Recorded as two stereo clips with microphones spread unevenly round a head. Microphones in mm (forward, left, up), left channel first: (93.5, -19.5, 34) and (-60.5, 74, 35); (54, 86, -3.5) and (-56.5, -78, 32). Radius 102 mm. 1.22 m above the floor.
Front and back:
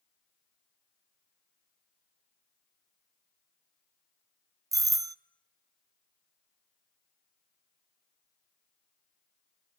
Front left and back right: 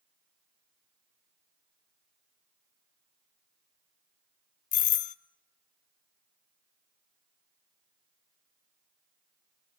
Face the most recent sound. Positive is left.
turn(degrees=80)